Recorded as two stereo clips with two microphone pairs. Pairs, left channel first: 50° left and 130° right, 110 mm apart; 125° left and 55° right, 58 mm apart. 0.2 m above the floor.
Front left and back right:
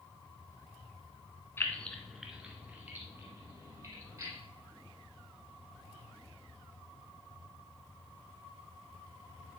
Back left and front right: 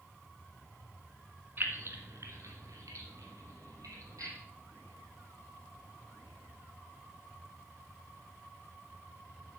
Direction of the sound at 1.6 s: 10° right.